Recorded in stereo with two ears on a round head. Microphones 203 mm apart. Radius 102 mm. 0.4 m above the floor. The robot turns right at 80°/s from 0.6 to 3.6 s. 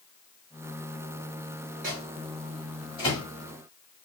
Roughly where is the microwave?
Right.